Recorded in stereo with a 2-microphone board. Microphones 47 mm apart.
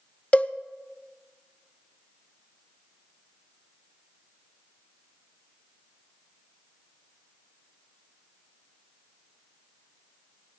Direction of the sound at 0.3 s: 30° left (ahead or behind).